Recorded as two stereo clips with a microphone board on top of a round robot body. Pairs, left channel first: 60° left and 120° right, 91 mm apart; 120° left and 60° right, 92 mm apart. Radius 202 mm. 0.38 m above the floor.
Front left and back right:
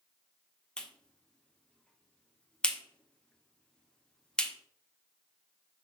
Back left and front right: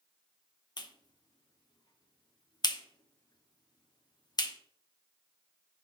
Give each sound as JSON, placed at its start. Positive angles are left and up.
{"t": 0.8, "sound": "a clap", "azimuth_deg": 140, "distance_m": 1.6}